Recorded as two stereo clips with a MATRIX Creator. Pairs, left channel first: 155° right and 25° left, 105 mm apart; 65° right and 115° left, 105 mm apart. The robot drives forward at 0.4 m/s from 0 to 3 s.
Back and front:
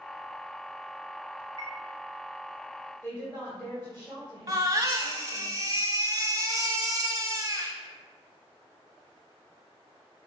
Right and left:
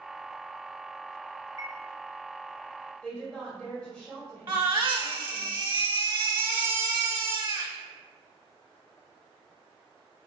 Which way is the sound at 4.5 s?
80° left.